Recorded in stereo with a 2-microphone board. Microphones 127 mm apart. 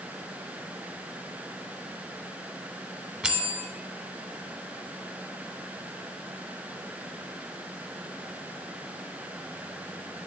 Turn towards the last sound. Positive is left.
turn(degrees=-5)  # may be behind; listen again after turning